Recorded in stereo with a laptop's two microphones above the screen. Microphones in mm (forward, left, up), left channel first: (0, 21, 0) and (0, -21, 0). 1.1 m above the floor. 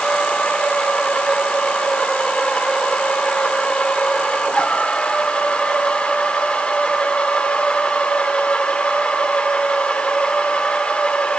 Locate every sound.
0.0 s a machine running: 25° left (ahead or behind), 1.1 m